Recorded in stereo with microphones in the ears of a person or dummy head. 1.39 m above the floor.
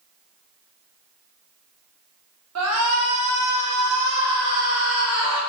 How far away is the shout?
About 1.2 m.